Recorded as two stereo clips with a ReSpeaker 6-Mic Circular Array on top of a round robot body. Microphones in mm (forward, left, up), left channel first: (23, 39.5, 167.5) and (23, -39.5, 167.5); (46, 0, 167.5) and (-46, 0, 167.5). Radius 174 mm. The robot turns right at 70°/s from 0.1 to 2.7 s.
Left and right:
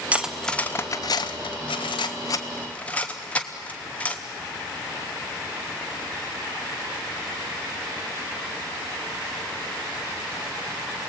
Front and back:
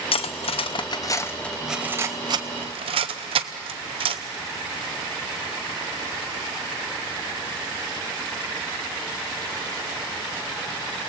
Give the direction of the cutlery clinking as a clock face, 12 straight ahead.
1 o'clock.